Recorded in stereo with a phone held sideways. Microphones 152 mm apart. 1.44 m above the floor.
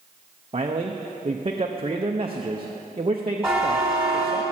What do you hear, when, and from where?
0.5 s a man speaking: 40° right (ahead or behind), 0.6 m
3.4 s a buzzer: 5° right (ahead or behind), 3 m